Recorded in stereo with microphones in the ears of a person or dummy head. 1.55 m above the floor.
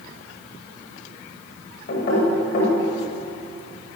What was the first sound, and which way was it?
Knocking, 50° left (ahead or behind).